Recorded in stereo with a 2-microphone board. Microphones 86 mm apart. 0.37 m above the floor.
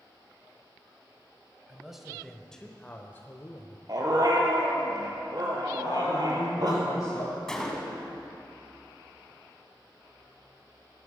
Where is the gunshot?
5° left (ahead or behind), 2.0 m.